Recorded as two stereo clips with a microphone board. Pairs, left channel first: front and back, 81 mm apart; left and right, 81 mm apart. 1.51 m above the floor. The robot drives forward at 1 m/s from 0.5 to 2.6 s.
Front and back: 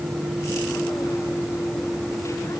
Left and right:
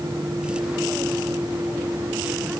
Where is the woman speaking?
No woman speaking in this recording.